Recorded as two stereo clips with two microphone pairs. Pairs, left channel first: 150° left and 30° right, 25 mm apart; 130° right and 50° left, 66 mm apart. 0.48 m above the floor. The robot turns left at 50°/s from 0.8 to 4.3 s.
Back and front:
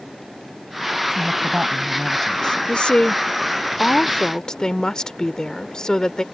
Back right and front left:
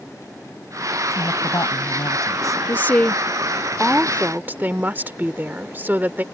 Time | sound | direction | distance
1.1 | a woman speaking | 85° right | ?
2.7 | a woman speaking | 175° right | ?